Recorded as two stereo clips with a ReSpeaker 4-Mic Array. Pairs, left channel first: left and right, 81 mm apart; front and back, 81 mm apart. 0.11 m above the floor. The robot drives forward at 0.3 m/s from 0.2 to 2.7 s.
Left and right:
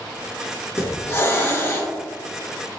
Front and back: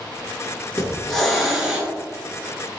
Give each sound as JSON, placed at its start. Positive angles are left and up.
{"t": 0.8, "sound": "a hiss", "azimuth_deg": 70, "distance_m": 0.9}